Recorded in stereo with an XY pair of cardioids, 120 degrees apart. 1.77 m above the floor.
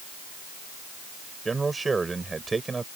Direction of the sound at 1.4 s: 20° right.